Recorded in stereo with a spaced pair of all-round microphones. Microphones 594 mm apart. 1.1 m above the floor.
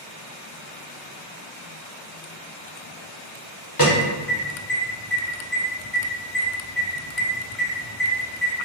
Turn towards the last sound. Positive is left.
turn(degrees=35)  # may be behind; listen again after turning